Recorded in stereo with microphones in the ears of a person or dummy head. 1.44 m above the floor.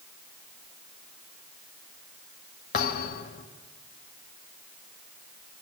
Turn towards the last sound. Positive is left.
turn(degrees=50)  # may be behind; listen again after turning